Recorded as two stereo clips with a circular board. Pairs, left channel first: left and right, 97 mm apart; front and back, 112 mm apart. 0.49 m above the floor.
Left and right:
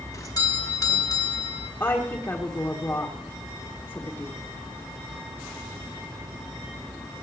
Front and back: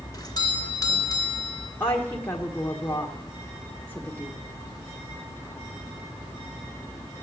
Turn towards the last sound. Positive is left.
turn(degrees=55)